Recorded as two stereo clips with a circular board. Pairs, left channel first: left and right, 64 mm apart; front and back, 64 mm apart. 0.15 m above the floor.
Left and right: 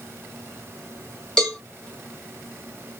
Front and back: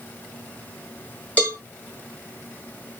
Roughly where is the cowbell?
Ahead left.